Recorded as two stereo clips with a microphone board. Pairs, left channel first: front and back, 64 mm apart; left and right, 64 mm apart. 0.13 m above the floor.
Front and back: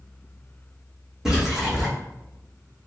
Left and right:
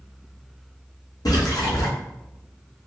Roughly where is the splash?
Left.